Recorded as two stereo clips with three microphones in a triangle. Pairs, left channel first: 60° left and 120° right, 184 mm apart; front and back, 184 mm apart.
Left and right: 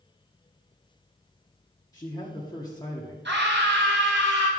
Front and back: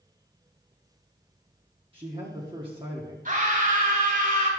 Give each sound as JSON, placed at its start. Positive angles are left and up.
{"t": 1.9, "sound": "a man speaking", "azimuth_deg": 125, "distance_m": 1.4}
{"t": 3.2, "sound": "a scream", "azimuth_deg": -135, "distance_m": 4.0}